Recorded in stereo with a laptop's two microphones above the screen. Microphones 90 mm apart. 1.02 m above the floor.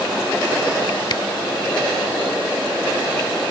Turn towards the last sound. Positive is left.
turn(degrees=55)  # may be behind; listen again after turning